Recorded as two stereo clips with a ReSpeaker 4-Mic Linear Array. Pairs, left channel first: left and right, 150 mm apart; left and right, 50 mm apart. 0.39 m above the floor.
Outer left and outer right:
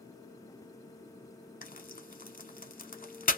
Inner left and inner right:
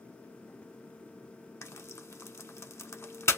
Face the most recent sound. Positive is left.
turn(degrees=65)  # may be behind; listen again after turning